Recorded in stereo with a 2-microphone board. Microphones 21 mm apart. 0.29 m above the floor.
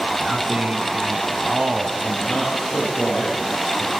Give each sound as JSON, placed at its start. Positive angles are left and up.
{"t": 0.2, "sound": "a man speaking", "side_deg": -65, "distance_m": 2.5}
{"t": 2.0, "sound": "a man speaking", "side_deg": 40, "distance_m": 7.5}